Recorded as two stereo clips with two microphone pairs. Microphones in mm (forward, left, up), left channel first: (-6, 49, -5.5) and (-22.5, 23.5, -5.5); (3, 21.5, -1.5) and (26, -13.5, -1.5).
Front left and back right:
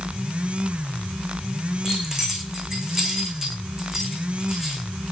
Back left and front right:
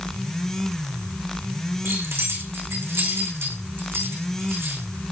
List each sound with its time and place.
1.9 s keys jangling: 50° right, 8 m